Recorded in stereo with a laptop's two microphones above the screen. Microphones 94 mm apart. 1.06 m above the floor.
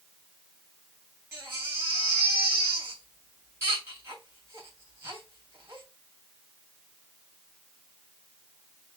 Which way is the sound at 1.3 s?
30° right (ahead or behind).